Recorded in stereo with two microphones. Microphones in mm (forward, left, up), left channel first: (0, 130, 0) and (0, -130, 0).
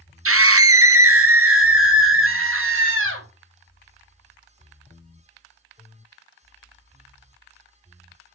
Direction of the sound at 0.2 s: 60° right (ahead or behind).